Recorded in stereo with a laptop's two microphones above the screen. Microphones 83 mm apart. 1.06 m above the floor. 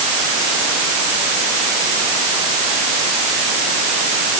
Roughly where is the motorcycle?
No motorcycle in this recording.